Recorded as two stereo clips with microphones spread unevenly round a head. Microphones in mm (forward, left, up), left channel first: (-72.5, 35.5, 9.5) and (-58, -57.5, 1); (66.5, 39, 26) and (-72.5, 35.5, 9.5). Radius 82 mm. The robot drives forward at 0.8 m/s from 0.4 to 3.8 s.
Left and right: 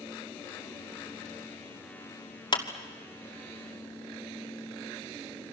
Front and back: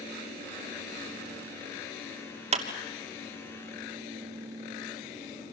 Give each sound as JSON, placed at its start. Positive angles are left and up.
{"t": 2.5, "sound": "a clap", "azimuth_deg": 135, "distance_m": 2.5}